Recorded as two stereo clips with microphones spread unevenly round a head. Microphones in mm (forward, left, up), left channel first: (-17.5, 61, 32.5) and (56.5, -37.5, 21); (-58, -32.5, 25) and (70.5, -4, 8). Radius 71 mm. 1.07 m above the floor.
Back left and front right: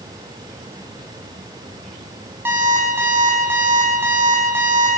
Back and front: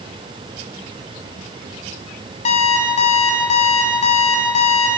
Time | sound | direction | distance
2.5 | an alarm clock | 130° right | 5.5 m